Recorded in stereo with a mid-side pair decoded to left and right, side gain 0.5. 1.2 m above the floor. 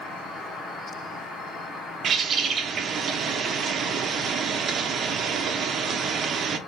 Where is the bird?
50° right, 0.8 m.